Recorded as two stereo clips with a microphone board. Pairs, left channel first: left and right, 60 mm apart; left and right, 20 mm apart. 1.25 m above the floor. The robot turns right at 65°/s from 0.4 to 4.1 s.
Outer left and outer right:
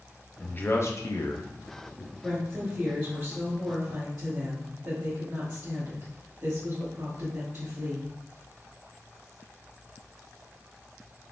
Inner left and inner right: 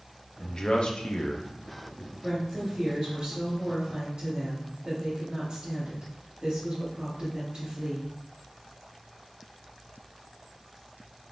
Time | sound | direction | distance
0.4 | a man speaking | 20° left (ahead or behind) | 0.6 m
2.2 | a woman speaking | 150° left | 1.2 m